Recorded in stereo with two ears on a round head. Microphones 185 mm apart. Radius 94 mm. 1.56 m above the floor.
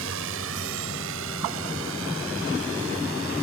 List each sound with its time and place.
0.0 s a drone: 75° right (ahead or behind)